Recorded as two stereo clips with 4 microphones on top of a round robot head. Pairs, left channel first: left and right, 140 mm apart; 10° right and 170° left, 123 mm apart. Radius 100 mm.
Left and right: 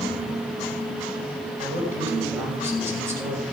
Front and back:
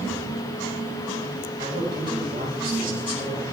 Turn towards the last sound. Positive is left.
turn(degrees=-160)